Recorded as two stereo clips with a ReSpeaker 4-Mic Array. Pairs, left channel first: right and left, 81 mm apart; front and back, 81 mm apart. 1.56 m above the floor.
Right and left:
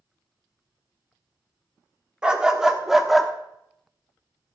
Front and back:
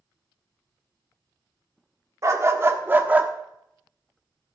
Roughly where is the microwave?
I don't hear a microwave.